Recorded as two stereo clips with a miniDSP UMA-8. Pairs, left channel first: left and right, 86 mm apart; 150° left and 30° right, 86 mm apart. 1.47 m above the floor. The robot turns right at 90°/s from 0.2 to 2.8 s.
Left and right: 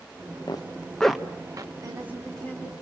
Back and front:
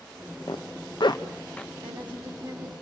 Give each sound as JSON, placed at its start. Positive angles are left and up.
{"t": 0.5, "sound": "a zipper", "azimuth_deg": 125, "distance_m": 1.2}
{"t": 1.8, "sound": "a woman speaking", "azimuth_deg": -40, "distance_m": 8.5}